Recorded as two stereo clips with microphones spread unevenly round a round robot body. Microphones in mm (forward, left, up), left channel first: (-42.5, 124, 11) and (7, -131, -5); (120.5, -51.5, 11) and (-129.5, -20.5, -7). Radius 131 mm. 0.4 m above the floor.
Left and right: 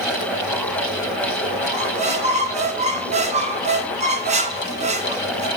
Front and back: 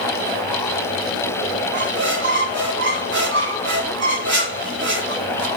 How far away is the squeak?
About 2.5 m.